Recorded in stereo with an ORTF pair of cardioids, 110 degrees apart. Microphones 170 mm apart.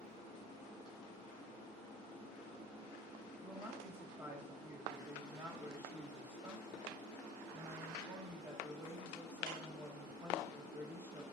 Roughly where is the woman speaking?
Ahead.